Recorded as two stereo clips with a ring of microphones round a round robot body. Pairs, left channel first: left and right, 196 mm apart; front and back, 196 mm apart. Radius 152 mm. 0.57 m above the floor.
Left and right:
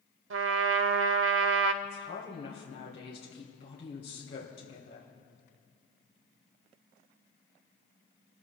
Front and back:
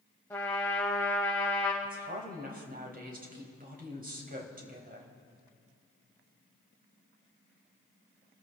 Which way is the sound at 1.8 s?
140° left.